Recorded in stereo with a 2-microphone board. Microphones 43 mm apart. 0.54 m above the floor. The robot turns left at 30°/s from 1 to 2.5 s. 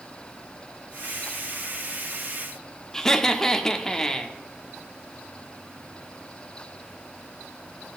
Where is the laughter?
10° left (ahead or behind), 0.7 m.